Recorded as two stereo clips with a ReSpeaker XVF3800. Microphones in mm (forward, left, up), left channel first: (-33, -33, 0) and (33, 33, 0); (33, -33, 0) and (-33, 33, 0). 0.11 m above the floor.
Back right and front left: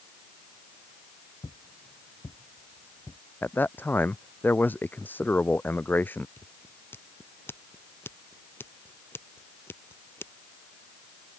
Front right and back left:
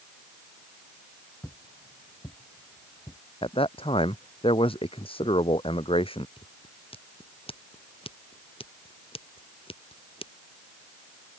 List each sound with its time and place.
1.4 s footsteps: 115° right; by 3.2 s 80° right
3.4 s a man speaking: 65° right
6.4 s scissors: 70° right